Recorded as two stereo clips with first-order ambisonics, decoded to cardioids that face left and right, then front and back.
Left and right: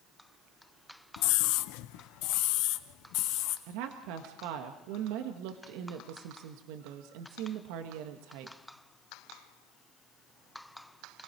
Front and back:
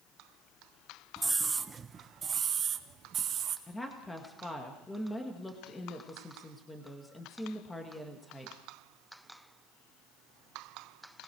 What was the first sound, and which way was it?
A scream, 95° left.